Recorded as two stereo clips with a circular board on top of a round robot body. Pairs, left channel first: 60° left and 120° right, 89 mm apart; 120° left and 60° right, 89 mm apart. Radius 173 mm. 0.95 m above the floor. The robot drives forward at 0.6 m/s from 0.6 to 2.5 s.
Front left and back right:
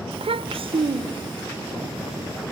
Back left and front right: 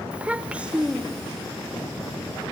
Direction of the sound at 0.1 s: 140° right.